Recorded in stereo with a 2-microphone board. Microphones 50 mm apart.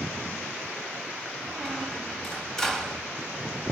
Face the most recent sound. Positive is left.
turn(degrees=5)  # may be behind; listen again after turning